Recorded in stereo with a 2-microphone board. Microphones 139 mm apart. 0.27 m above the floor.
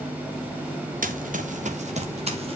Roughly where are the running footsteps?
Right.